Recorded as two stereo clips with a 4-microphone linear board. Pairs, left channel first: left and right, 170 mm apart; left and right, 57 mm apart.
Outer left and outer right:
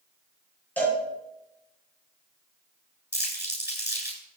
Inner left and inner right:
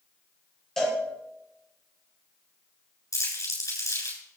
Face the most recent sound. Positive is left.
turn(degrees=80)